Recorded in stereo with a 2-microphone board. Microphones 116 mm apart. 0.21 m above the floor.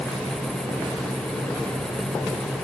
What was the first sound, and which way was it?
Only background noise.